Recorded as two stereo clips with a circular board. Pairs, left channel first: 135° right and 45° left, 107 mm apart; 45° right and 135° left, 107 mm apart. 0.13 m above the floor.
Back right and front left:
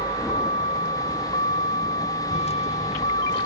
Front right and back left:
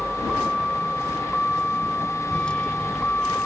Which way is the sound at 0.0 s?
135° right.